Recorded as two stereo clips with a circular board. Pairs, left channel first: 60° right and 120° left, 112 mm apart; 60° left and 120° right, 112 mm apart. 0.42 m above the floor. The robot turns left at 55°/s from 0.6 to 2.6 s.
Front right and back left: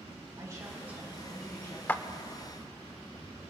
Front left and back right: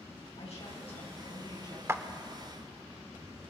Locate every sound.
0.4 s a woman speaking: 60° left, 4 m; by 1.8 s 5° right, 4 m
1.9 s a clap: 105° right, 0.5 m; by 2.0 s 115° right, 0.5 m